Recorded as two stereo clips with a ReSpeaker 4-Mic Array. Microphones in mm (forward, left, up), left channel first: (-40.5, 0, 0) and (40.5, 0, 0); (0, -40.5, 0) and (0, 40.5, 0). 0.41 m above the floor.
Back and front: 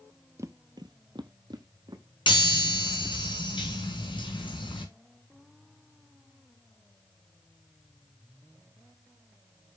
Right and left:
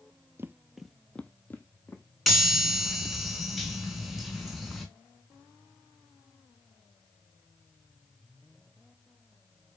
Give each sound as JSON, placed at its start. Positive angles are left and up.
{"t": 0.4, "sound": "footsteps", "azimuth_deg": 40, "distance_m": 0.5}
{"t": 2.3, "sound": "a chime", "azimuth_deg": 180, "distance_m": 2.0}